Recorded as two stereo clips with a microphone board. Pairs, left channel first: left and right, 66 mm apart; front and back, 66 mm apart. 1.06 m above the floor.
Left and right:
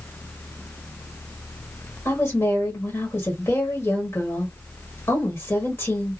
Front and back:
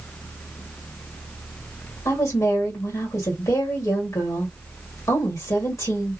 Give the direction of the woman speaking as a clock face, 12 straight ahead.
11 o'clock.